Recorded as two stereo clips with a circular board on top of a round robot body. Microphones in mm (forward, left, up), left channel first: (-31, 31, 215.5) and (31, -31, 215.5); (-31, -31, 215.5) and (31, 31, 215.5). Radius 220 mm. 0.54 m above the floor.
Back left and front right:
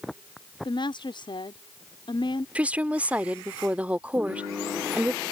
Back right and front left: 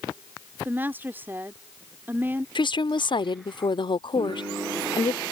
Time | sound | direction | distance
0.7 | a woman speaking | 110° left | ?
2.5 | a woman speaking | 120° right | ?